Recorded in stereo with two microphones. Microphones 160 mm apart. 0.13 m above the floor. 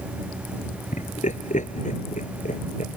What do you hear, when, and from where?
0.9 s laughter: 55° left (ahead or behind)